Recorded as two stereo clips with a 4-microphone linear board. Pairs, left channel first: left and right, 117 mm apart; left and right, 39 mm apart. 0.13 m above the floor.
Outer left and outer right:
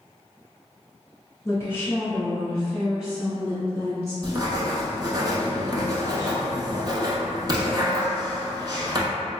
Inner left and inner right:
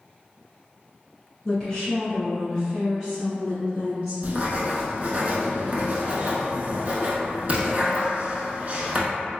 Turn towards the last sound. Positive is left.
turn(degrees=-40)  # may be behind; listen again after turning